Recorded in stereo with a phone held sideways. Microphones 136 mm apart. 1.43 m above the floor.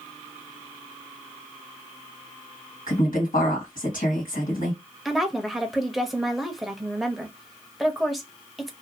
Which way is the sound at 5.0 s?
Centre (ahead or behind).